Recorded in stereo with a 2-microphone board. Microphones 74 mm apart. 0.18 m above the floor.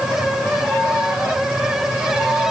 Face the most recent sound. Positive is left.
No sound to turn to.